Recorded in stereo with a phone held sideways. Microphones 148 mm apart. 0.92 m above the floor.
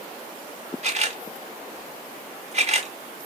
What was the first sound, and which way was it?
A camera shutter, 50° right (ahead or behind).